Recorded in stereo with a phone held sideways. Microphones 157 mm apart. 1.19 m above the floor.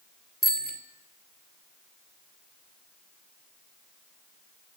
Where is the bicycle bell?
65° left (ahead or behind), 2.5 m.